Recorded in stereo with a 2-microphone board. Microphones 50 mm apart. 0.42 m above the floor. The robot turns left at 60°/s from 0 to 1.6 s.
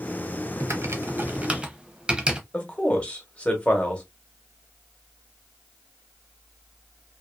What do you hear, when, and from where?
0.6 s typing on a keyboard: 80° right, 0.6 m; by 2.4 s 20° right (ahead or behind), 0.6 m
2.5 s a man speaking: 25° left (ahead or behind), 1.0 m